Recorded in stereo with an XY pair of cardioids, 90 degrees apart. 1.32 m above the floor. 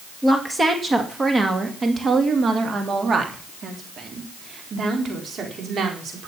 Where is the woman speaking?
15° right, 2 m; by 6.3 s 60° right, 4.5 m.